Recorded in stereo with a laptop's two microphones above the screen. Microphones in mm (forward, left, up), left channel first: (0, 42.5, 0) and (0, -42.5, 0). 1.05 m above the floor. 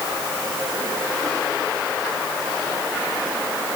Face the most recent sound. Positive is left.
No sound to turn to.